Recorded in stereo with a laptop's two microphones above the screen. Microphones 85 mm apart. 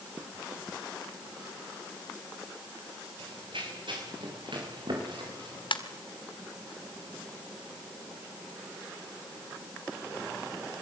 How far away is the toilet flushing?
No toilet flushing in this recording.